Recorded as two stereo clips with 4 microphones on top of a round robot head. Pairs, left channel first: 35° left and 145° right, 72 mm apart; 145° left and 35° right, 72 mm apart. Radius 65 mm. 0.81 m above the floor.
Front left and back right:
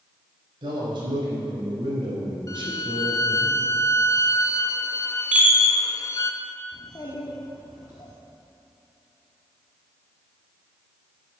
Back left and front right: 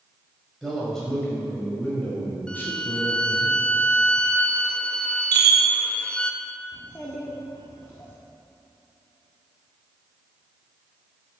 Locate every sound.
0.6 s a man speaking: 125° right, 4.5 m; by 3.5 s 165° right, 4 m
2.5 s a violin: 70° left, 0.9 m
5.3 s a chime: 70° right, 1.5 m
6.7 s a child speaking: 85° left, 1.8 m